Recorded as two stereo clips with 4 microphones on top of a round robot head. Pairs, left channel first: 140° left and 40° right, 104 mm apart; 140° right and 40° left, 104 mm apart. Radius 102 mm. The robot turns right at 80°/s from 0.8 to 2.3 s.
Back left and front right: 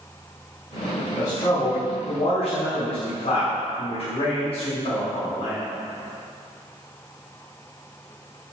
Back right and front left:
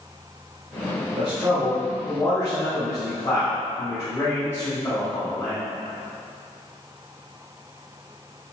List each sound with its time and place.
1.2 s a man speaking: 65° left, 2 m; by 5.6 s 155° left, 2 m